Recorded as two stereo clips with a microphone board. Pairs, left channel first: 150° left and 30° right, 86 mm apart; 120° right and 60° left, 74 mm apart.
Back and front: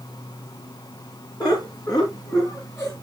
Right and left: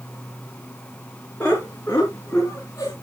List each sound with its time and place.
1.4 s laughter: 175° left, 3 m; by 2.9 s 165° right, 2.5 m